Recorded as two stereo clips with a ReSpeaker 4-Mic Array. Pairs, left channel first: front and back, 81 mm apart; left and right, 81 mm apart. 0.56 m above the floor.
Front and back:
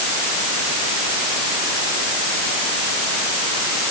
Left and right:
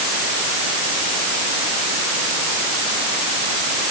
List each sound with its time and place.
Only background noise.